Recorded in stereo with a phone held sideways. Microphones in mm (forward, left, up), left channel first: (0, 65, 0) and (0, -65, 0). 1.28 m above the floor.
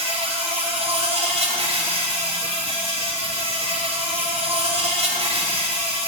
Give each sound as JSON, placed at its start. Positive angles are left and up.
{"t": 0.0, "sound": "an insect", "side_deg": -55, "distance_m": 4.0}